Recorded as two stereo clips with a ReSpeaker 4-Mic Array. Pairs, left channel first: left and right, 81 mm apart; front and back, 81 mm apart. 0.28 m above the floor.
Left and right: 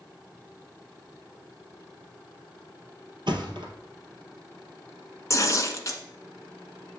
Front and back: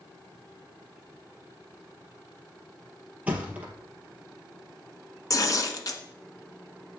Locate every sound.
3.3 s a thud: 110° right, 1.8 m
5.3 s tearing paper: 40° left, 1.3 m